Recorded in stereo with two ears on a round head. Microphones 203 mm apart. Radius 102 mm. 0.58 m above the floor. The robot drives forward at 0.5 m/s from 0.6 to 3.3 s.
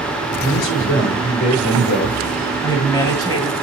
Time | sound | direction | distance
0.4 | a man speaking | 40° left (ahead or behind) | 8 m
2.6 | a woman speaking | 15° left (ahead or behind) | 3.5 m